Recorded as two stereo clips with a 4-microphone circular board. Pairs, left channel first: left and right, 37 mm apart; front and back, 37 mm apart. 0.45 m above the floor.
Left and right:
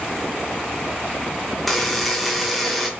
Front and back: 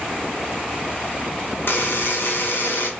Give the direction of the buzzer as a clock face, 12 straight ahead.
12 o'clock.